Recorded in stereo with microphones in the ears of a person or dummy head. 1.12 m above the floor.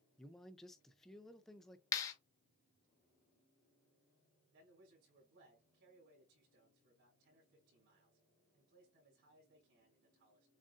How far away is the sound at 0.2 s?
About 0.5 m.